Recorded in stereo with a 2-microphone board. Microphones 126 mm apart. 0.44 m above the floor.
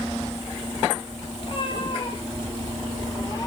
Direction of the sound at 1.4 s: 45° left (ahead or behind).